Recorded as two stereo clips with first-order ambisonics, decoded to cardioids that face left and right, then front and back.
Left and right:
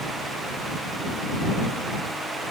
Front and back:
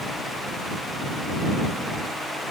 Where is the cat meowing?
No cat meowing in this recording.